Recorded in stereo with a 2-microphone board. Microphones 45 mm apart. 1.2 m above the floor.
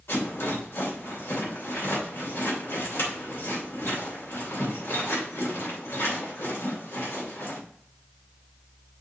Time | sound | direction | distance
0.1 | a rattle | 85° left | 3 m